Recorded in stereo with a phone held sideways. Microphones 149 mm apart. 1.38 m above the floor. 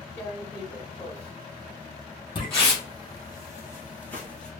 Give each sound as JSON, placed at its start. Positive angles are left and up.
{"t": 0.2, "sound": "tearing paper", "side_deg": 15, "distance_m": 1.2}
{"t": 2.4, "sound": "footsteps", "side_deg": 30, "distance_m": 1.7}